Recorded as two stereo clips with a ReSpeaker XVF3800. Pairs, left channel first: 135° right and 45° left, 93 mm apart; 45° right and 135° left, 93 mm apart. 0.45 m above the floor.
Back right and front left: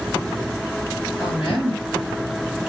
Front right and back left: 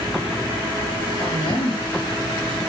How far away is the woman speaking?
About 6.5 m.